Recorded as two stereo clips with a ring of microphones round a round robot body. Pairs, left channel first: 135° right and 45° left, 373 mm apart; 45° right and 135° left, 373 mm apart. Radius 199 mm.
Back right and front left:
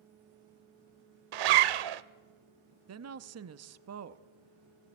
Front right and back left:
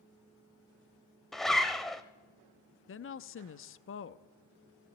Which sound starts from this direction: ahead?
A woman speaking, at 2.9 s.